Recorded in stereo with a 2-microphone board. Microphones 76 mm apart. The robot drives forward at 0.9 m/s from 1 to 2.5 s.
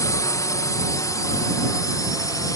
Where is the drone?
50° left (ahead or behind); by 2.6 s 55° left (ahead or behind).